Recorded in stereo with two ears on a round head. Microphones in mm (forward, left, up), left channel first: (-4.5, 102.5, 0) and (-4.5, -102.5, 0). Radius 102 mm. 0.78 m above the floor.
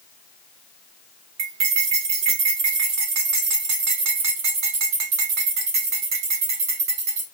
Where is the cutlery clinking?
80° right, 2.5 m.